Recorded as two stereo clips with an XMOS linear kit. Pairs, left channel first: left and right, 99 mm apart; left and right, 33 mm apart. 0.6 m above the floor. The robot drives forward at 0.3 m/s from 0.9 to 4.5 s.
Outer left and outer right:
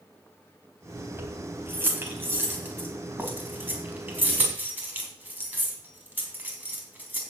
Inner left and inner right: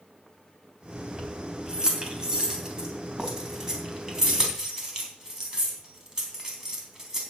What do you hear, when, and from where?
1.2 s keys jangling: 25° right (ahead or behind), 2.5 m; by 7.2 s 20° right (ahead or behind), 3.5 m